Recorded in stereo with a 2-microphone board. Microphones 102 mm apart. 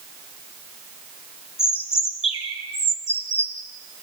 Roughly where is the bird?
Left.